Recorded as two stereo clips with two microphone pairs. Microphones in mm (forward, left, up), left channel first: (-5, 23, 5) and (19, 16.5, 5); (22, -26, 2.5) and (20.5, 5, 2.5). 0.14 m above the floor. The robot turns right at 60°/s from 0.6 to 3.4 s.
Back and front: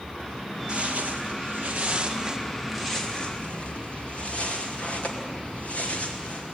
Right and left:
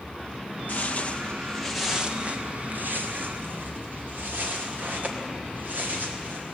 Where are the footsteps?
70° right, 2.5 m; by 6.5 s 125° left, 5 m.